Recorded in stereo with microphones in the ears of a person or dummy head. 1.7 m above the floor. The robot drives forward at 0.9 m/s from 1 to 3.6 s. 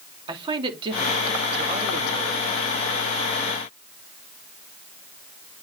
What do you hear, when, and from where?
0.3 s a man speaking: 25° right (ahead or behind), 3 m; by 2.5 s 45° right (ahead or behind), 1.8 m